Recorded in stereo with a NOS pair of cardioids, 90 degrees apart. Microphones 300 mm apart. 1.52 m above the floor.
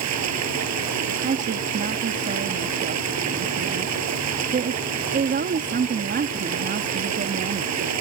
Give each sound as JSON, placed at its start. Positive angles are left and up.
{"t": 0.0, "sound": "running water", "azimuth_deg": -65}
{"t": 1.2, "sound": "a woman speaking", "azimuth_deg": -35}